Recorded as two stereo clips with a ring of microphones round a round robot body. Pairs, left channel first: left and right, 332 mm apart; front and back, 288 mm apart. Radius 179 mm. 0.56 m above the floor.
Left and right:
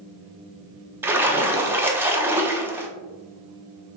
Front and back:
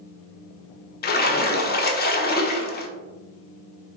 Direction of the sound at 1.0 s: 10° right.